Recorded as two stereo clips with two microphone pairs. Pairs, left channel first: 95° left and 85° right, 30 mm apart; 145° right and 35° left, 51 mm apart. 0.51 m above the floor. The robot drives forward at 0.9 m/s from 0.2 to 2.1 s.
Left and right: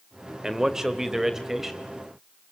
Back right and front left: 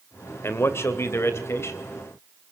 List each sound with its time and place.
0.4 s a man speaking: 155° right, 2 m; by 1.8 s 165° right, 3.5 m